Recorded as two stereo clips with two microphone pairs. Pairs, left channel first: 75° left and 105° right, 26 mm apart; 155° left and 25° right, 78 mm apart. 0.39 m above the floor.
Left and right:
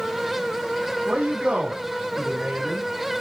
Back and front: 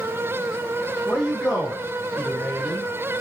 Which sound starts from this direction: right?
A man speaking, at 1.1 s.